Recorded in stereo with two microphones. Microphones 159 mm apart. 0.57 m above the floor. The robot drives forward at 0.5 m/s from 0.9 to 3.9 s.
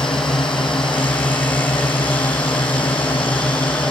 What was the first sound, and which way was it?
A drone, 35° left (ahead or behind).